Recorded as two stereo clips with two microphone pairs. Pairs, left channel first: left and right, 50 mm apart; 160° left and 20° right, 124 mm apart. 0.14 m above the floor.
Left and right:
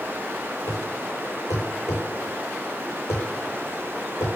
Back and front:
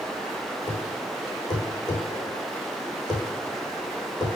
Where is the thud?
105° left, 3.5 m.